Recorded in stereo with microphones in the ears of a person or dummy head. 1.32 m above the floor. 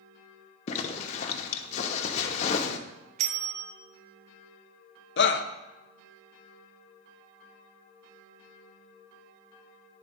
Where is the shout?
60° left (ahead or behind), 0.8 m.